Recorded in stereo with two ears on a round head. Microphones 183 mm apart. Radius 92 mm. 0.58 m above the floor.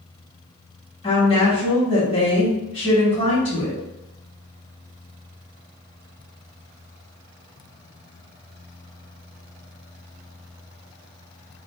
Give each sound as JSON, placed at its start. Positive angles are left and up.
{"t": 1.0, "sound": "a woman speaking", "side_deg": 30, "distance_m": 1.2}